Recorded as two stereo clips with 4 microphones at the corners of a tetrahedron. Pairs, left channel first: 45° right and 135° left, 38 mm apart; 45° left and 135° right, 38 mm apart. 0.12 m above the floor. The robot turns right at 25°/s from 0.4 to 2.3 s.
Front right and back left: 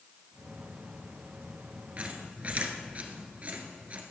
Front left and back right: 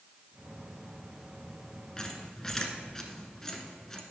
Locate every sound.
2.0 s a squeak: 110° left, 1.2 m; by 4.0 s 115° left, 1.2 m